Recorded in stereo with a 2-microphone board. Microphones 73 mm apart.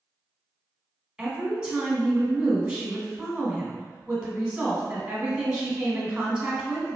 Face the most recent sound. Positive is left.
turn(degrees=-10)  # may be behind; listen again after turning